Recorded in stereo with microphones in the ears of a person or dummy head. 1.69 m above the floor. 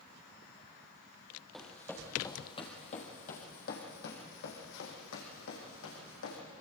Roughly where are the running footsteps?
Centre.